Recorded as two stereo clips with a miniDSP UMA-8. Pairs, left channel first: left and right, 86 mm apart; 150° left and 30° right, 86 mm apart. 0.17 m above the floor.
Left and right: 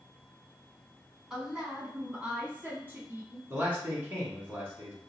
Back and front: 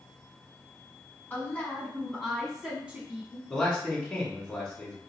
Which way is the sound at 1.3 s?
170° right.